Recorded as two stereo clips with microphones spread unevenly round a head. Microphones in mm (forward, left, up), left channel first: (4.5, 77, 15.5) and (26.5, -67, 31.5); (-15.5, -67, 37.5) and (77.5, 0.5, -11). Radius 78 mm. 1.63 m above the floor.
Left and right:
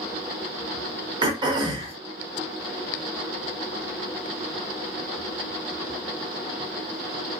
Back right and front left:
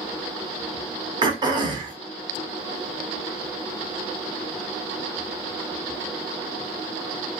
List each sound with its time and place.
1.2 s throat clearing: 25° right, 0.8 m